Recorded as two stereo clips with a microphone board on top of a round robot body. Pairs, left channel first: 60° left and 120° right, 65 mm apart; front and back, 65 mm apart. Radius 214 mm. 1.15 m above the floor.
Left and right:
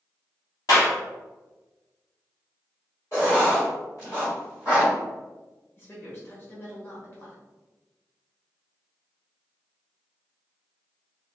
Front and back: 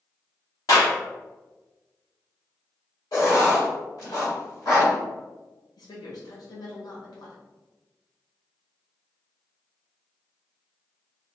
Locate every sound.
0.7 s a clap: 35° left, 1.4 m
3.1 s writing: 10° left, 1.2 m
5.8 s a woman speaking: straight ahead, 1.0 m